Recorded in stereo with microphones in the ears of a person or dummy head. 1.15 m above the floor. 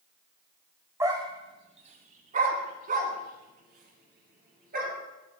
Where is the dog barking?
15° right (ahead or behind), 1.2 m; by 4.9 s 50° right (ahead or behind), 5 m.